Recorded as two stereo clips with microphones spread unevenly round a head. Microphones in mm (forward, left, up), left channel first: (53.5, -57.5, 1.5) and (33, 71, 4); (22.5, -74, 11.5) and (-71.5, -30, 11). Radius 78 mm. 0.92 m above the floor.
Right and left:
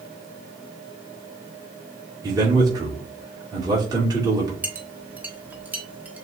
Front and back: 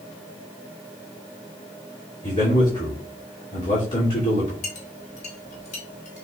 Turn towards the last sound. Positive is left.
turn(degrees=20)